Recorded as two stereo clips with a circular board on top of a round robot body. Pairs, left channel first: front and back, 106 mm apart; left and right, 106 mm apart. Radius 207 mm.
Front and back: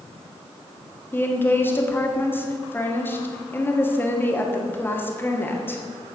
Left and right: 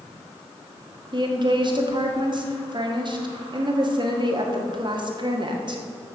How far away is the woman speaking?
About 1.8 m.